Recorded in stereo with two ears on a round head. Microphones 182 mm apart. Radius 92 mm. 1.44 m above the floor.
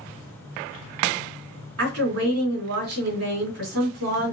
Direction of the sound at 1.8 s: 75° right (ahead or behind).